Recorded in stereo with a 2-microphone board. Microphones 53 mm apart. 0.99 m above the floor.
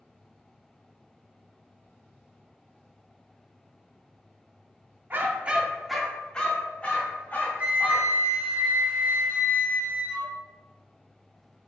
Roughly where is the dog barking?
Right.